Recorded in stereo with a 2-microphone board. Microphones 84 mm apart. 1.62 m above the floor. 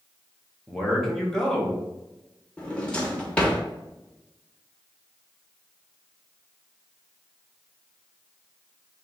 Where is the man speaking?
5° left (ahead or behind), 1.2 m.